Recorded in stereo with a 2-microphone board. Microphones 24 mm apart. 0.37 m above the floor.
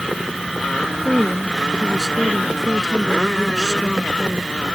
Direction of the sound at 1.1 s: 5° right (ahead or behind).